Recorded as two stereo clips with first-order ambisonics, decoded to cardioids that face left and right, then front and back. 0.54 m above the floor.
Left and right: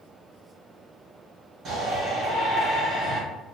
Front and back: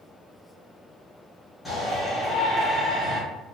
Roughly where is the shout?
Right.